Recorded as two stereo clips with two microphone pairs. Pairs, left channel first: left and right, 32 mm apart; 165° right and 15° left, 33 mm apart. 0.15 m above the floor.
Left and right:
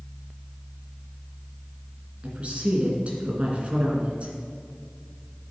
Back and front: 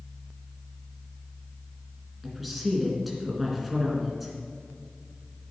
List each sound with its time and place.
2.2 s a woman speaking: 70° right, 2 m